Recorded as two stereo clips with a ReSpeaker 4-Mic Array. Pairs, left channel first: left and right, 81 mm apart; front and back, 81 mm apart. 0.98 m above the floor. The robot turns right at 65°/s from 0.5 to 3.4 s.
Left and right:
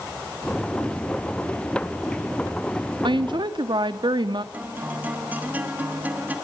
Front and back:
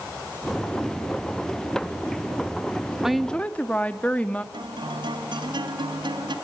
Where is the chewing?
I don't hear chewing.